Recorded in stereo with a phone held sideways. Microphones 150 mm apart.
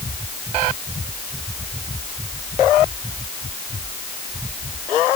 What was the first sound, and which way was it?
Only background noise.